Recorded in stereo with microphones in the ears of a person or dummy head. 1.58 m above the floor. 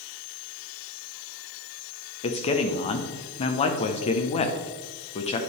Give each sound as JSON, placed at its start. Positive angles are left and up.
{"t": 2.2, "sound": "a man speaking", "side_deg": 30, "distance_m": 0.8}